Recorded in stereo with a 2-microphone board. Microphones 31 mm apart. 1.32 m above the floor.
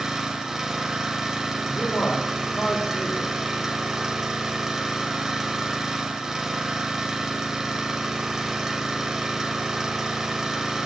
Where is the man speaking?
80° left, 3.5 m.